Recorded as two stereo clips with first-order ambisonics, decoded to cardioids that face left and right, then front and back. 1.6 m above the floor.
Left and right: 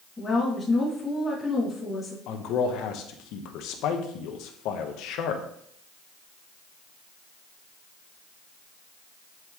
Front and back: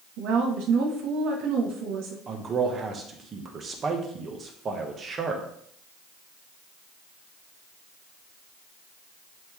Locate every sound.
0.2 s a woman speaking: 170° left, 2.5 m
2.3 s a man speaking: 115° left, 1.1 m